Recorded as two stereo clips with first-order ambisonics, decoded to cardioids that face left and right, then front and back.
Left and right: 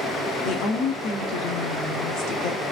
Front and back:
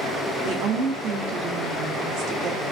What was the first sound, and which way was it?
A woman speaking, 135° left.